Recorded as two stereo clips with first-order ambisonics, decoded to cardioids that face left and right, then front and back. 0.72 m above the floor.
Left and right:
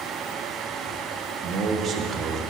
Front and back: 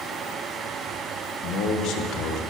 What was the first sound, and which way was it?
A man speaking, 25° right.